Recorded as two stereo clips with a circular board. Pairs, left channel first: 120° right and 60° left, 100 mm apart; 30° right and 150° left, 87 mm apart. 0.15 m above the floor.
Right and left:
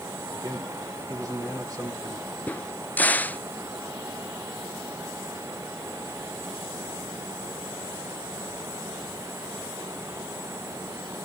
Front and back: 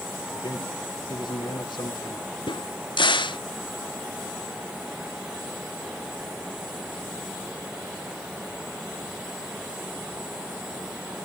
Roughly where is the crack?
Ahead right.